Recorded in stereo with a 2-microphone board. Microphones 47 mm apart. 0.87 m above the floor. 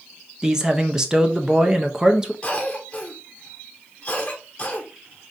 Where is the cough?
20° left (ahead or behind), 0.9 m.